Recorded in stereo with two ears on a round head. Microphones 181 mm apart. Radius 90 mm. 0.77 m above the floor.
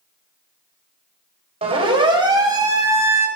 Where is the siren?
30° right (ahead or behind), 4 m; by 3.3 s 15° right (ahead or behind), 4.5 m.